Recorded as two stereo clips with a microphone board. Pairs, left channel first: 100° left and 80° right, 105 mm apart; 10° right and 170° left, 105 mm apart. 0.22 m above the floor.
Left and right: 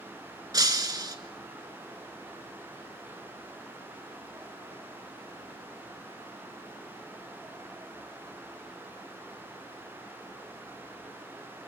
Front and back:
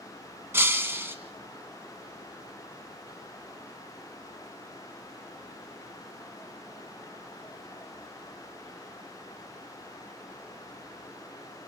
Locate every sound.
0.5 s breaking glass: 125° right, 1.2 m